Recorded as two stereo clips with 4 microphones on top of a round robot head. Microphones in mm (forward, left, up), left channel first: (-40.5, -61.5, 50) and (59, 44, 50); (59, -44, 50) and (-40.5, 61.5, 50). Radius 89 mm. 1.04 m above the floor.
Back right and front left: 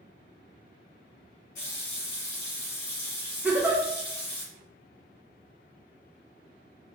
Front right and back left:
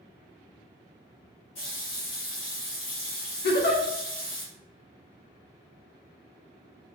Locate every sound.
1.6 s a running tap: 100° right, 1.1 m
3.4 s a giggle: 35° right, 0.5 m